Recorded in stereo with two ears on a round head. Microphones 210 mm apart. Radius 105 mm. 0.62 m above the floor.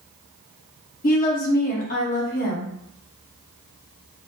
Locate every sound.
1.0 s a woman speaking: 35° left (ahead or behind), 0.9 m